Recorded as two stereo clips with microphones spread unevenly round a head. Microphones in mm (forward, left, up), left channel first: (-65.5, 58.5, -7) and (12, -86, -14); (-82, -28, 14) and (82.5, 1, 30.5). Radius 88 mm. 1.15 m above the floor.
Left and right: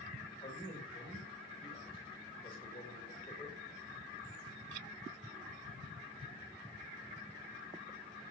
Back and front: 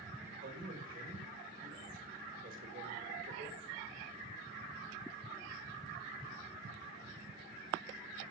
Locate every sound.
0.4 s a man speaking: 55° left, 4.5 m